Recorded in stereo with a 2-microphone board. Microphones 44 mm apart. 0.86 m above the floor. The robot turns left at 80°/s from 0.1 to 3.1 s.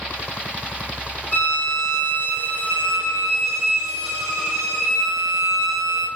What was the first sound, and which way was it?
A violin, 135° left.